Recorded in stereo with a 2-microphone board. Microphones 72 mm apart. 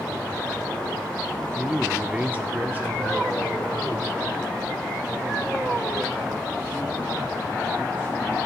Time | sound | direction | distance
1.6 | a man speaking | 10° right (ahead or behind) | 0.9 m